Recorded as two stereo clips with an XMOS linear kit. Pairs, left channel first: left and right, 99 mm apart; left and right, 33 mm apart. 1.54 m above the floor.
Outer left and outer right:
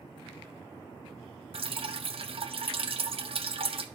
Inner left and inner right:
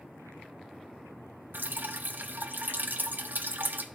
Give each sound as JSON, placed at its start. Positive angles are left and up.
{"t": 1.5, "sound": "dripping", "side_deg": -65, "distance_m": 0.6}